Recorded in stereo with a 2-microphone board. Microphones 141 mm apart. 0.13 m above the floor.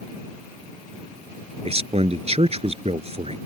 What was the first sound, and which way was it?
A man speaking, 50° right (ahead or behind).